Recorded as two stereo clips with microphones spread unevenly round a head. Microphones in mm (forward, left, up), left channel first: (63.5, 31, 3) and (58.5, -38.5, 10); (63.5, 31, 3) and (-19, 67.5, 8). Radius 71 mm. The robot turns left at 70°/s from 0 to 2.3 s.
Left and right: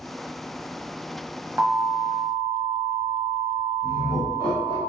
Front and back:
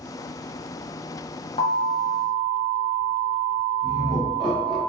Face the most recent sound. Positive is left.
turn(degrees=65)